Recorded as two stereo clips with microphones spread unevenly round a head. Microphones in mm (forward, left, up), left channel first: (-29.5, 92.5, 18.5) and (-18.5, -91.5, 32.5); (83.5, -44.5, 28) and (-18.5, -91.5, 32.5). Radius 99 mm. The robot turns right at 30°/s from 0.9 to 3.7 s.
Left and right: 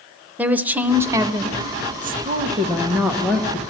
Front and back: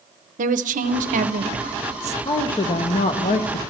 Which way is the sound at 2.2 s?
30° right.